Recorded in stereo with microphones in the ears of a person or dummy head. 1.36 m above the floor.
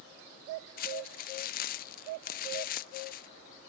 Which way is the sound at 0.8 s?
45° left (ahead or behind).